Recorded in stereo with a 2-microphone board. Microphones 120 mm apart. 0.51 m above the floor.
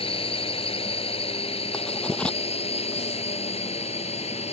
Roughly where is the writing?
Centre.